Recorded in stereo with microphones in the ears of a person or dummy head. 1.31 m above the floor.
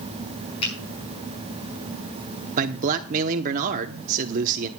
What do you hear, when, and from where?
0.6 s a finger snap: 35° left (ahead or behind), 6.5 m
2.6 s a man speaking: 45° right (ahead or behind), 0.9 m